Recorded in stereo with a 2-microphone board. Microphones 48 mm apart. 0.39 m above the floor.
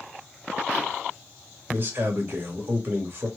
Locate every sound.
1.7 s a man speaking: 50° right (ahead or behind), 2 m